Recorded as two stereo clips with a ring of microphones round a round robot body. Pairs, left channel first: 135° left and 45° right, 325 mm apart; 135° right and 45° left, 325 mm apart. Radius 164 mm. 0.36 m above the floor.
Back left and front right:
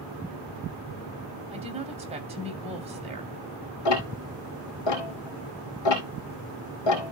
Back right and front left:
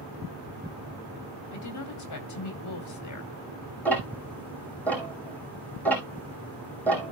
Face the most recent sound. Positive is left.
turn(degrees=140)